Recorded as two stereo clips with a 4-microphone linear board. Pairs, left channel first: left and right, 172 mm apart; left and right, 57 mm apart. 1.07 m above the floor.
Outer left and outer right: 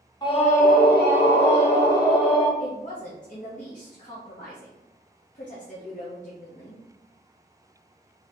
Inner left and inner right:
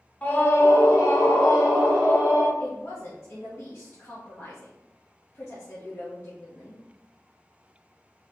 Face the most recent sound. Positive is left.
turn(degrees=45)  # may be behind; listen again after turning